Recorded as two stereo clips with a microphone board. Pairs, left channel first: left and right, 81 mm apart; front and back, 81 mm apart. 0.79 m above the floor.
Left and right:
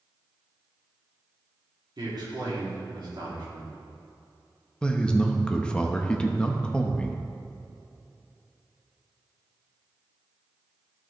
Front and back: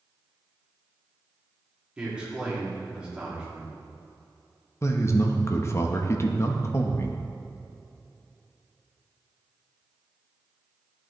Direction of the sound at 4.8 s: 20° left.